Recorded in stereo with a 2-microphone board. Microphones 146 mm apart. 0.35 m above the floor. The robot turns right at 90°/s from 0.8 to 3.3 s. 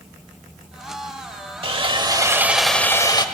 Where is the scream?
I don't hear a scream.